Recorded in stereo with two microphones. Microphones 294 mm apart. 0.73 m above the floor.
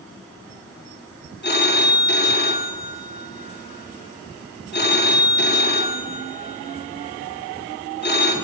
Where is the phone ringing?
35° left (ahead or behind), 0.7 m.